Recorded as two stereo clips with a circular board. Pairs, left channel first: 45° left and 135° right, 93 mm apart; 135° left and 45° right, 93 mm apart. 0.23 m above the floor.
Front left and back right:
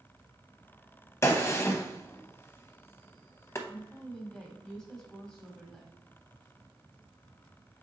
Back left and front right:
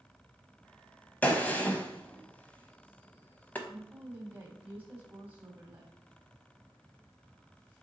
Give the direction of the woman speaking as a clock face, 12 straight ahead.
1 o'clock.